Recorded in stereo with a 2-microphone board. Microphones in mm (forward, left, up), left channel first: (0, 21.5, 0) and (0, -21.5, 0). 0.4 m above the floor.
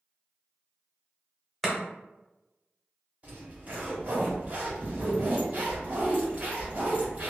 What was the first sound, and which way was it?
Chopping, centre (ahead or behind).